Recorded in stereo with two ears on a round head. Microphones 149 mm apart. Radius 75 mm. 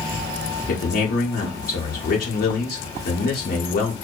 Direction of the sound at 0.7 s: 50° left (ahead or behind).